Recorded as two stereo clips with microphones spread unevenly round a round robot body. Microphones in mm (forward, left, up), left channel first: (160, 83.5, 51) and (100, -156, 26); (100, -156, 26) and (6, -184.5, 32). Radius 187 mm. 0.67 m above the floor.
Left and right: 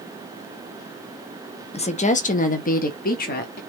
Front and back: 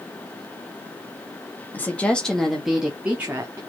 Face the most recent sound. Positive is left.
turn(degrees=130)